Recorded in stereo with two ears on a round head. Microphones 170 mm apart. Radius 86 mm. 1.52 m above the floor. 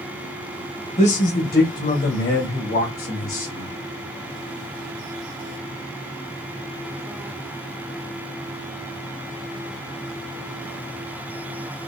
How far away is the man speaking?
About 0.8 m.